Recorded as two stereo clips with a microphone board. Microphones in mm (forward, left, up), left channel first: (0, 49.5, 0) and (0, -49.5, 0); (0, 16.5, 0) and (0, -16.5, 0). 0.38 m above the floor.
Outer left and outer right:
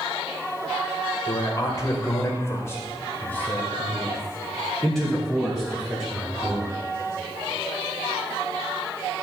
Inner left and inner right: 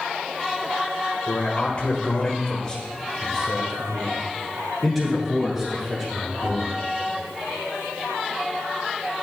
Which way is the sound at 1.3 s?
40° left (ahead or behind).